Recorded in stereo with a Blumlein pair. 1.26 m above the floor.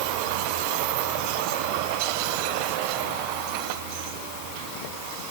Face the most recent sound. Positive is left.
No sound to turn to.